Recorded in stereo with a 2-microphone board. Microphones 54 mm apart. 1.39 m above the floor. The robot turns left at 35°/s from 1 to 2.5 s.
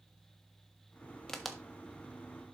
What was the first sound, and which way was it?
A crack, 5° left (ahead or behind).